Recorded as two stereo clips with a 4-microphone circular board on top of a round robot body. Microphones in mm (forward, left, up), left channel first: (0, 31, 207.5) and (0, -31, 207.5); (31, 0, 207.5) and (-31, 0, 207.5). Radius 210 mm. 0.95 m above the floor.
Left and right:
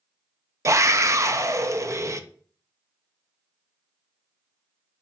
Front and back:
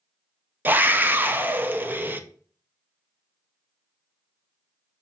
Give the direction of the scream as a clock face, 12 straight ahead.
4 o'clock.